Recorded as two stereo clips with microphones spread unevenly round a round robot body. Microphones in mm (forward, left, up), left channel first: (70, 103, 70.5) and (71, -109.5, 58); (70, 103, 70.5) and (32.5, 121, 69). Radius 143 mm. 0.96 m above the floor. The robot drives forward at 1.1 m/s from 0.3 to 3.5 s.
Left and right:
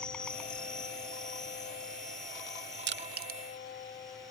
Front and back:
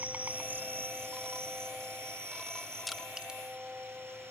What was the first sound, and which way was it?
An insect, 170° left.